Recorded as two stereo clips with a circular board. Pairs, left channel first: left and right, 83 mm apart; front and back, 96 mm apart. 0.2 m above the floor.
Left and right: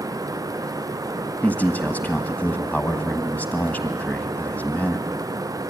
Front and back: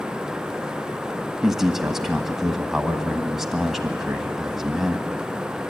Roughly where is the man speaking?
Left.